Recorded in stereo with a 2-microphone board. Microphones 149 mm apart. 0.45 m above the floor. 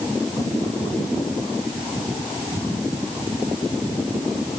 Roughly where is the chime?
I don't hear a chime.